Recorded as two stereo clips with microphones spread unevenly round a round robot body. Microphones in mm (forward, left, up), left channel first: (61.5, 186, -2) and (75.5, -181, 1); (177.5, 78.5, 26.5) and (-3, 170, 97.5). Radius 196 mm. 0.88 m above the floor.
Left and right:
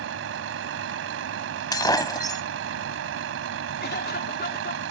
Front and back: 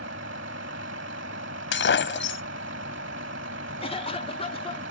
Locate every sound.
0.0 s a vehicle: 150° right
1.7 s breaking glass: 15° left
3.8 s a cough: 30° left